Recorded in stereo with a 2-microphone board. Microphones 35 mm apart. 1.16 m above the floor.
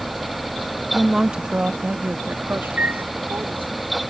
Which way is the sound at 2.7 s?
50° right (ahead or behind).